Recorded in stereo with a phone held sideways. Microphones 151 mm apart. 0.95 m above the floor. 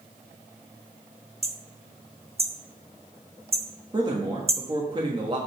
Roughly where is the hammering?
Right.